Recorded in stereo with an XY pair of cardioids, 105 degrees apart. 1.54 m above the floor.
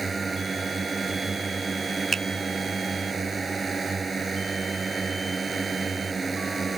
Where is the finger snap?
35° right.